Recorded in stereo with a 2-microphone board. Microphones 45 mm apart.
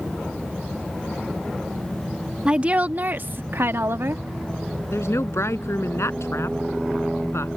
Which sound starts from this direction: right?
A woman speaking, at 2.5 s.